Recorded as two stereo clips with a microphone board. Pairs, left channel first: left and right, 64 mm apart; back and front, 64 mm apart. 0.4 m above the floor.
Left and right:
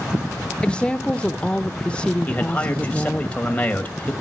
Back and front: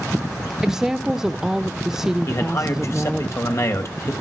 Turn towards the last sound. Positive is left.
turn(degrees=155)